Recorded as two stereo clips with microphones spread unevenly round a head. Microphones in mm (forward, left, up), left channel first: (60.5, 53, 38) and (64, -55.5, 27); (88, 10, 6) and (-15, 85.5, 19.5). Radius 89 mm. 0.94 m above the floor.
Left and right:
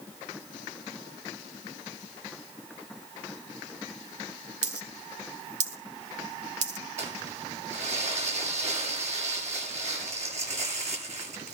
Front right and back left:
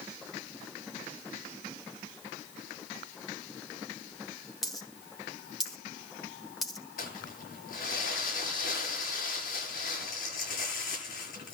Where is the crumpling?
80° right, 8.5 m.